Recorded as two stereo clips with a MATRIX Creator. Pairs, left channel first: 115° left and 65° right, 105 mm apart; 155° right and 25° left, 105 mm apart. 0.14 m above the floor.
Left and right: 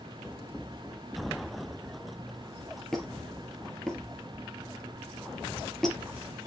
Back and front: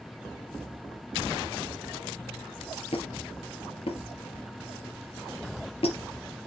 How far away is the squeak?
About 2 m.